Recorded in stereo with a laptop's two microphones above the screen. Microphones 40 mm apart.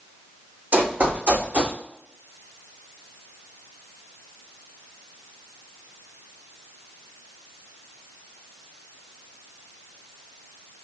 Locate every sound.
0.7 s running footsteps: 40° right (ahead or behind), 1.9 m; by 1.8 s 35° right (ahead or behind), 2.5 m